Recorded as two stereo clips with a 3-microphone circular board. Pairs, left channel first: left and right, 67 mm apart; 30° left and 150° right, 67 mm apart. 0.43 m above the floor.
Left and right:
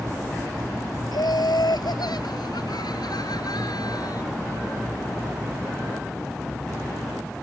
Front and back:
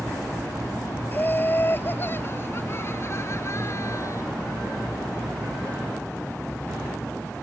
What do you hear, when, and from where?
1.1 s laughter: 90° left; by 4.2 s 70° left